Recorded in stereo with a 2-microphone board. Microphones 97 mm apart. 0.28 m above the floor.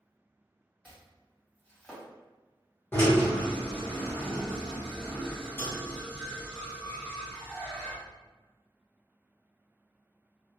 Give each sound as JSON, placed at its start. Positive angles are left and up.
{"t": 0.8, "sound": "chopping", "side_deg": 15, "distance_m": 1.6}
{"t": 2.9, "sound": "a drill", "side_deg": 25, "distance_m": 1.2}